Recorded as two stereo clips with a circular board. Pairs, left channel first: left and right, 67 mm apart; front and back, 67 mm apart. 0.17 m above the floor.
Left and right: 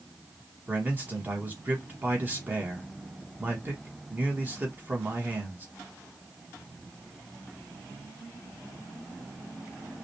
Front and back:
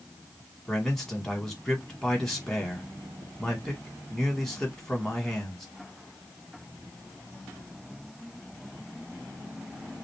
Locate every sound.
0.7 s a man speaking: 75° right, 1.3 m